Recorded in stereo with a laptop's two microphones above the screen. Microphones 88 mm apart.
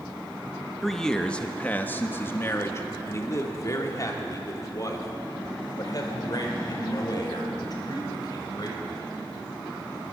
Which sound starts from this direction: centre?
A man speaking, at 0.8 s.